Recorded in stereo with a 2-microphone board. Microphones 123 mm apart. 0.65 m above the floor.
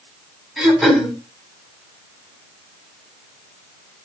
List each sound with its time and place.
0.6 s throat clearing: centre (ahead or behind), 3.5 m